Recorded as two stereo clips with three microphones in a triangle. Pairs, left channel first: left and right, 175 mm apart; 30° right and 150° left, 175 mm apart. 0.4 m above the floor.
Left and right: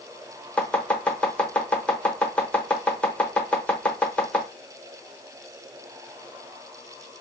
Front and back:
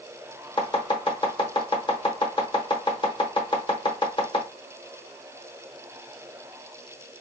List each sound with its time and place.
0.6 s chopping: 10° left, 1.0 m